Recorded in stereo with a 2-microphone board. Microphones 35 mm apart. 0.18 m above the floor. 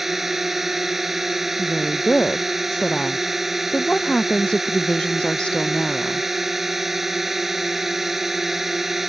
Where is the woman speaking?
30° left (ahead or behind).